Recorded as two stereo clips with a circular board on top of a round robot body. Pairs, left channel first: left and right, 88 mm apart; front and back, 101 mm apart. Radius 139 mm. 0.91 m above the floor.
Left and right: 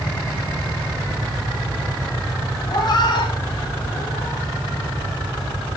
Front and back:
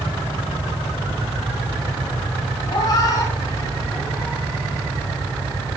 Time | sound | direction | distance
2.7 | a cat meowing | 50° left | 2.5 m